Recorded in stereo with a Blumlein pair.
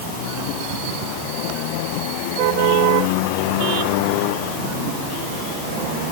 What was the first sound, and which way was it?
Only background noise.